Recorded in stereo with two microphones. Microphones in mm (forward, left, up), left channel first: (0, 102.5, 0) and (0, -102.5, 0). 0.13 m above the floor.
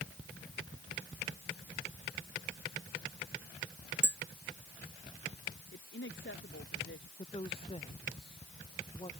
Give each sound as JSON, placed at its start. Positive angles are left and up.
{"t": 4.0, "sound": "tapping", "side_deg": -60}
{"t": 5.7, "sound": "a woman speaking", "side_deg": 65}
{"t": 7.2, "sound": "a woman speaking", "side_deg": 25}